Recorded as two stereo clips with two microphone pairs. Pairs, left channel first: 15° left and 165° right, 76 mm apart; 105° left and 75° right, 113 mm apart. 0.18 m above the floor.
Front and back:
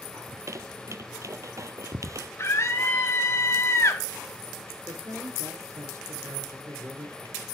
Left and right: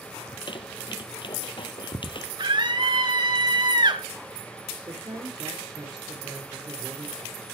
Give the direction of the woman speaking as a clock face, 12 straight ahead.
4 o'clock.